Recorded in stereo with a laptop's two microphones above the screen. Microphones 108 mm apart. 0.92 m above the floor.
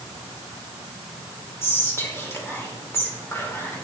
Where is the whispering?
25° left (ahead or behind), 2.0 m.